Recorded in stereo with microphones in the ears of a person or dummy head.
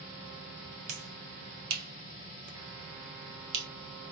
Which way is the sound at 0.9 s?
80° right.